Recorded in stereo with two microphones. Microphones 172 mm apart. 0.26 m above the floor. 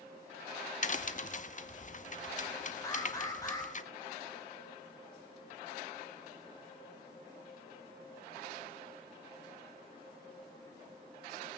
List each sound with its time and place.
0.8 s a crack: 50° left (ahead or behind), 0.7 m
2.8 s an alarm: 20° left (ahead or behind), 2 m